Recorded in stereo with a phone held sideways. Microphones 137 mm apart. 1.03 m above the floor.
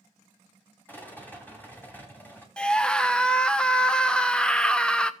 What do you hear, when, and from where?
0.9 s a rattle: 15° left (ahead or behind), 2.5 m
2.6 s a scream: 5° left (ahead or behind), 0.7 m